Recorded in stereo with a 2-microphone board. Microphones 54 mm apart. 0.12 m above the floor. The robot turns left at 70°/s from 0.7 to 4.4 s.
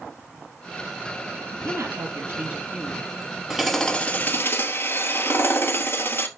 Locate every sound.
1.5 s a woman speaking: 75° right, 2.5 m; by 3.1 s 170° left, 2.5 m
3.5 s hammering: 170° right, 1.4 m; by 6.3 s 125° left, 1.4 m